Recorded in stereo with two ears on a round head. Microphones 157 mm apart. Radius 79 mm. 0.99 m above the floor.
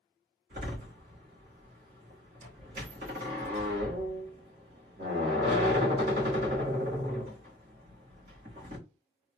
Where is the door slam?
55° right (ahead or behind), 2.5 m.